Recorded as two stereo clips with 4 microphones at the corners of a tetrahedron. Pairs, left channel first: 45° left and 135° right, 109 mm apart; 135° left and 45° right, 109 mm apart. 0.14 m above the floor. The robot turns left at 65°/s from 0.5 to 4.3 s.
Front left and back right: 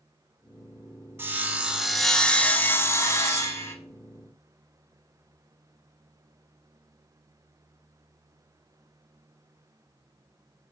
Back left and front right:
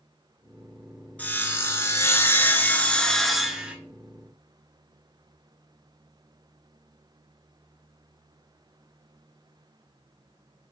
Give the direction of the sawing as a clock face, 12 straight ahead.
6 o'clock.